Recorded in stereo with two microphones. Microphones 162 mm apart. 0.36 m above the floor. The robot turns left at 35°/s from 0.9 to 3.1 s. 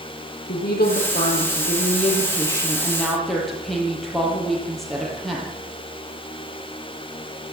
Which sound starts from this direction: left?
A woman speaking, at 0.5 s.